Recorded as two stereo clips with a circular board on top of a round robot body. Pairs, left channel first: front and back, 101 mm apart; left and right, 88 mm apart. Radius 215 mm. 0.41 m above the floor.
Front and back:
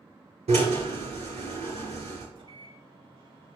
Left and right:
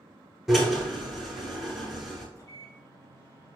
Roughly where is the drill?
Behind.